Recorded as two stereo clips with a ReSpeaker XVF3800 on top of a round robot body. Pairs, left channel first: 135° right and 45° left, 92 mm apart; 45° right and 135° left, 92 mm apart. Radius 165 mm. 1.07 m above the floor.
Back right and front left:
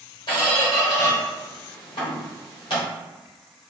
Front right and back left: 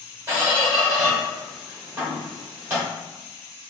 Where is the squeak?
155° right, 1.2 m.